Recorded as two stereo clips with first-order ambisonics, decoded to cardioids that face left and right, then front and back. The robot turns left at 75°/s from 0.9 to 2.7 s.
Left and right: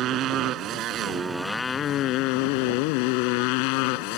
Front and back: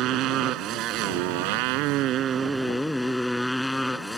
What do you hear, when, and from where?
0.0 s a motorcycle: 135° right; by 4.2 s 90° left